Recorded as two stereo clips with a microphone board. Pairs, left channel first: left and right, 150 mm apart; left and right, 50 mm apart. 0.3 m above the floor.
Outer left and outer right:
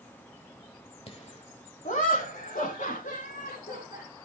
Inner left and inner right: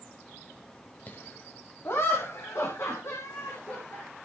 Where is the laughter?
40° left (ahead or behind), 1.4 m; by 4.0 s 70° left (ahead or behind), 4.5 m.